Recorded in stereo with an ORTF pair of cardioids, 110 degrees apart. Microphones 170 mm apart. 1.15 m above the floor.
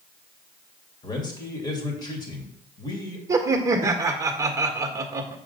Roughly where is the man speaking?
Ahead left.